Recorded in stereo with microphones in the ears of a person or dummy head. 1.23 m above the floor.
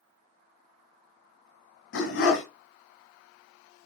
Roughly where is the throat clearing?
I don't hear throat clearing.